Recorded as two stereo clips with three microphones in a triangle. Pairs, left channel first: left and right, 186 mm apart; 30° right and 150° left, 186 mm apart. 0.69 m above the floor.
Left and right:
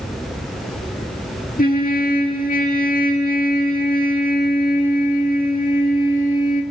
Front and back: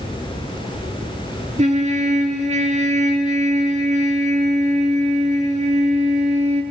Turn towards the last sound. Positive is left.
turn(degrees=110)